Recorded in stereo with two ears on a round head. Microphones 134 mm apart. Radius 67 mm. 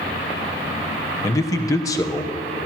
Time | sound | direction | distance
1.2 | a man speaking | 20° left (ahead or behind) | 1.1 m